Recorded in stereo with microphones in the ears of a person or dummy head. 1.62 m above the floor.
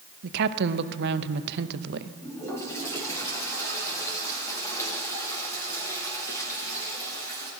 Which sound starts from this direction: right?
A woman speaking, at 0.2 s.